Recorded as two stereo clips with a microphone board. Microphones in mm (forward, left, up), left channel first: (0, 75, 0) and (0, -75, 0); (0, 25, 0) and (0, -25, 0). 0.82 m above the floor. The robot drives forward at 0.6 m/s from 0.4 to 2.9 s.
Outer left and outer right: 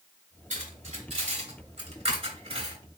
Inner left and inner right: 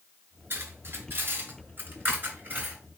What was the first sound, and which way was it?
Cutlery clinking, 60° right (ahead or behind).